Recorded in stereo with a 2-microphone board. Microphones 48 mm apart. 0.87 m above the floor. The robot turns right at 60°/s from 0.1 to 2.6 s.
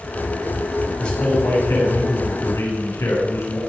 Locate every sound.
1.0 s a man speaking: 15° left, 7 m; by 3.6 s 110° left, 7 m